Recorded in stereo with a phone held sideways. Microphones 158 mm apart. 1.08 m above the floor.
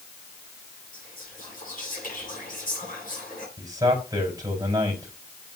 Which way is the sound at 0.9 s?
60° left (ahead or behind).